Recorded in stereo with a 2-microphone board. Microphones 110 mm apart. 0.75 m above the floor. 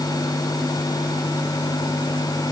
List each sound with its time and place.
Only background noise.